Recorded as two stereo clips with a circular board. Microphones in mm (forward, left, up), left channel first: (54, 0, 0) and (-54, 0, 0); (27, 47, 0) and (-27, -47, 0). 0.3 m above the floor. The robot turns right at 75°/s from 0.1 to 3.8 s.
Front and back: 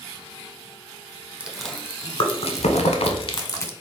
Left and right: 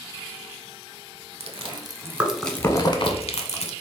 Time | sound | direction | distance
1.4 | chewing | 105° right | 0.6 m